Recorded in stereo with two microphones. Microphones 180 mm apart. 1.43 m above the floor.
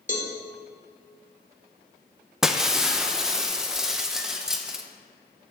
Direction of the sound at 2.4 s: 5° right (ahead or behind).